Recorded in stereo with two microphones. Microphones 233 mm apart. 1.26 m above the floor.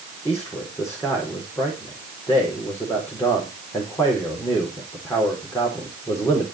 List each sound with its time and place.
0.2 s a man speaking: 10° left (ahead or behind), 4 m